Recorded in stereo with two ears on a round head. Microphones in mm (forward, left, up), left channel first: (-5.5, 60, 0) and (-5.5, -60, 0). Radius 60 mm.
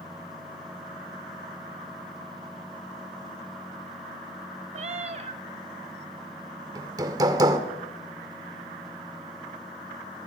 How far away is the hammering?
About 1.9 m.